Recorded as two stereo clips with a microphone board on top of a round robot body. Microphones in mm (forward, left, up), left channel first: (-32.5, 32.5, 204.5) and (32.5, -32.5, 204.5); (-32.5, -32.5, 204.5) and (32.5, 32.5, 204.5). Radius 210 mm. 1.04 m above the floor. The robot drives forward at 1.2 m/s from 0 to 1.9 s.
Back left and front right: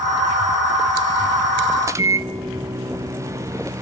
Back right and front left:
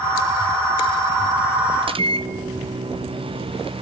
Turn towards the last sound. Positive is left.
turn(degrees=15)